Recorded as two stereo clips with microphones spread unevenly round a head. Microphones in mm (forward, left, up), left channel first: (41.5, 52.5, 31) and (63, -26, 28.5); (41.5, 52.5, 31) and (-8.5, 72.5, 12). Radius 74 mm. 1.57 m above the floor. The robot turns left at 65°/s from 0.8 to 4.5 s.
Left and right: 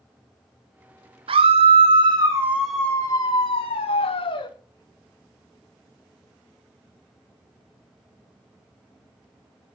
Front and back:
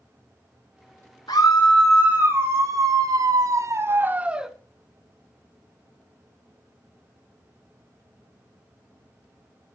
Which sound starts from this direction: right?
A scream, at 1.3 s.